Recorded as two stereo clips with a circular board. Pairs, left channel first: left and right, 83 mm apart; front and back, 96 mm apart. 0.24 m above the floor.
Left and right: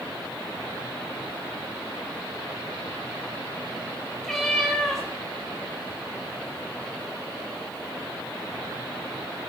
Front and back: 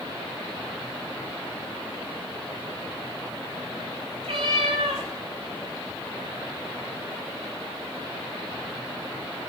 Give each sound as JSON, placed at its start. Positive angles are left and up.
{"t": 4.2, "sound": "a cat meowing", "azimuth_deg": 175, "distance_m": 6.0}